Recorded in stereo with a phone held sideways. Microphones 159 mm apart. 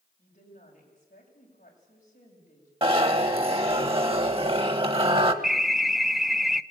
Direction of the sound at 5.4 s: Centre (ahead or behind).